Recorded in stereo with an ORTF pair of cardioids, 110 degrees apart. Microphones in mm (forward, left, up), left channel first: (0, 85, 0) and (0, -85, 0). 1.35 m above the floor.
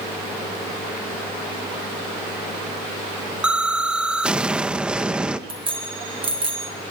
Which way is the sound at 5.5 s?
30° right.